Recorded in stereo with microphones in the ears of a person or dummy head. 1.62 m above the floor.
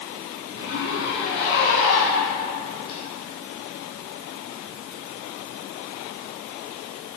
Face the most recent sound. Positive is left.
turn(degrees=60)  # may be behind; listen again after turning